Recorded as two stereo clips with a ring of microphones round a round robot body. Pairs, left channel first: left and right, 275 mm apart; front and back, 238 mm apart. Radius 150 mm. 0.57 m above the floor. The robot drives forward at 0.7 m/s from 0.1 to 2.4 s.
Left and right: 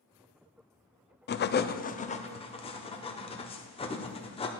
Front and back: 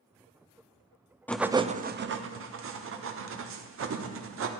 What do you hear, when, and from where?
1.3 s writing: 80° left, 0.5 m; by 4.5 s 160° left, 0.9 m